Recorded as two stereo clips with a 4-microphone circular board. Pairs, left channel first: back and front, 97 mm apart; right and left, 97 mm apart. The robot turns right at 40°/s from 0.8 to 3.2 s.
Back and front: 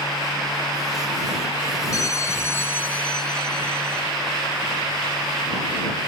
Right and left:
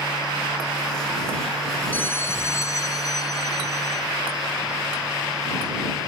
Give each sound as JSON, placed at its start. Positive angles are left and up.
{"t": 1.9, "sound": "a bell", "azimuth_deg": -150}